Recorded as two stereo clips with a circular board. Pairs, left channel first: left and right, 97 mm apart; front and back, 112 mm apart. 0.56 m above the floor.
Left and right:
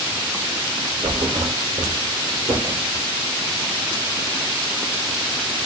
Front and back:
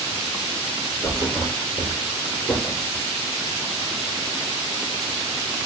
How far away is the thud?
About 2.5 m.